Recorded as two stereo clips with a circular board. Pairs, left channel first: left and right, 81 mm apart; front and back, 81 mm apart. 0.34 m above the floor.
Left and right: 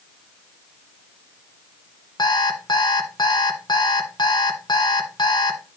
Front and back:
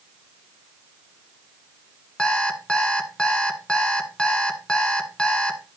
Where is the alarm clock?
80° left, 1.2 m.